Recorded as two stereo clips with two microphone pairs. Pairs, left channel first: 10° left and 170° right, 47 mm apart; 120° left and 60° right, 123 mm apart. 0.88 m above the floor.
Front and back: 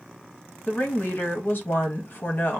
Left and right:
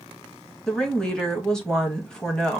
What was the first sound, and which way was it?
A woman speaking, 40° left.